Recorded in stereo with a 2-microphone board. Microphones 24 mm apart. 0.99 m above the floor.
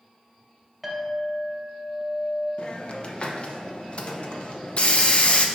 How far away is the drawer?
I don't hear a drawer.